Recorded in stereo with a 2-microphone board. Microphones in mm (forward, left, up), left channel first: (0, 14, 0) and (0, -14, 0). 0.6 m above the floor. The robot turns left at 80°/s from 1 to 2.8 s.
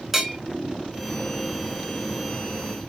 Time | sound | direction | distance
0.1 | a bell | 10° right (ahead or behind) | 1.3 m